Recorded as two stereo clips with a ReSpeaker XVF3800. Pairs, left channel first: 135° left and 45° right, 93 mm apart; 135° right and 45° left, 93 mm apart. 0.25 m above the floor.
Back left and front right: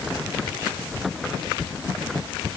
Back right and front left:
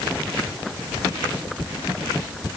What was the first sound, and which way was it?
Only background noise.